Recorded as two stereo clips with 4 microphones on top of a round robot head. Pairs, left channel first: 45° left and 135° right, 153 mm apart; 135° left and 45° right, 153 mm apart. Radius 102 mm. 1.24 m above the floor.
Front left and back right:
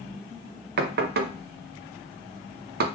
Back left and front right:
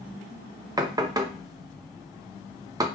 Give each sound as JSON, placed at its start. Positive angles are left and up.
{"t": 0.8, "sound": "knocking", "azimuth_deg": -115, "distance_m": 0.5}